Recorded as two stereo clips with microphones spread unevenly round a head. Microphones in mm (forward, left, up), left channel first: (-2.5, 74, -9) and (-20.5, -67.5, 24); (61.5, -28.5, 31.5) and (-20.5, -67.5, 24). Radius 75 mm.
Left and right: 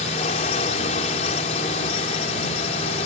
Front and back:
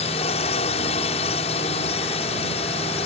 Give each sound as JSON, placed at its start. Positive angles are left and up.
{"t": 0.0, "sound": "a drone", "azimuth_deg": 35}